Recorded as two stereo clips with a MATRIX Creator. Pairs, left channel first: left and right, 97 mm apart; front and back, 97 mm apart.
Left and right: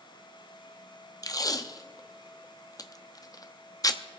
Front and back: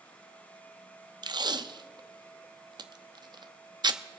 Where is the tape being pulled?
140° left, 0.6 m.